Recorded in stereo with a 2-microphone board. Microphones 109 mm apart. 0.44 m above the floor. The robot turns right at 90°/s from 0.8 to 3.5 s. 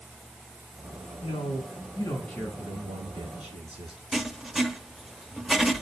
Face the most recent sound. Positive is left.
turn(degrees=-5)  # may be behind; listen again after turning